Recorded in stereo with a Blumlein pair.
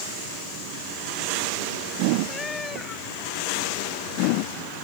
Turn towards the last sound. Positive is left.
turn(degrees=15)